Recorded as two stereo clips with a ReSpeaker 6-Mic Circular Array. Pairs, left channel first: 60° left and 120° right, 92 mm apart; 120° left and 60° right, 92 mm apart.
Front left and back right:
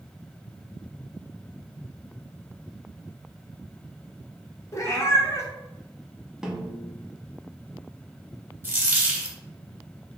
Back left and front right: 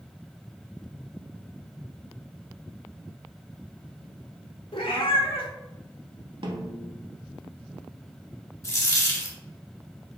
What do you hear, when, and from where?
4.7 s a cat meowing: 115° left, 0.7 m
6.4 s a snare drum: 35° right, 0.6 m
8.6 s a dropped coin: 175° left, 0.8 m